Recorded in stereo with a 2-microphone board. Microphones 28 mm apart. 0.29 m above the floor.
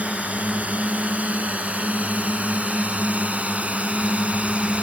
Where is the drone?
65° right (ahead or behind); by 4.8 s 50° right (ahead or behind).